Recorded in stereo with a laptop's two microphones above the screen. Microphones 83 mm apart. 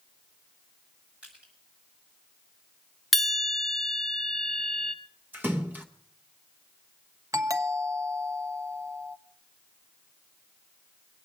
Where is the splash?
20° right (ahead or behind), 1.0 m.